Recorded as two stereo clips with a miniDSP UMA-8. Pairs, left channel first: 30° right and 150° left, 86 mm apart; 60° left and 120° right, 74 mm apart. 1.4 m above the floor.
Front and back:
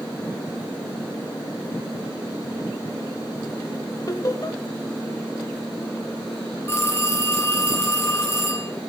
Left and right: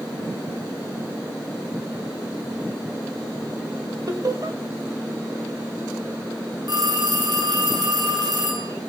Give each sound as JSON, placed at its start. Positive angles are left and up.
{"t": 4.1, "sound": "laughter", "azimuth_deg": -80, "distance_m": 2.5}
{"t": 6.7, "sound": "a phone ringing", "azimuth_deg": -95, "distance_m": 9.0}